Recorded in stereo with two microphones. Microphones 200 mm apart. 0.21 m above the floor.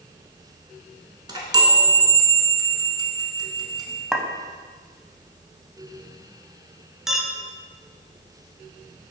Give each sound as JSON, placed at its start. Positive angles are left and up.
{"t": 1.3, "sound": "a chime", "side_deg": -20, "distance_m": 0.9}
{"t": 4.1, "sound": "a clink", "side_deg": 0, "distance_m": 0.6}
{"t": 7.1, "sound": "a clink", "side_deg": 0, "distance_m": 0.7}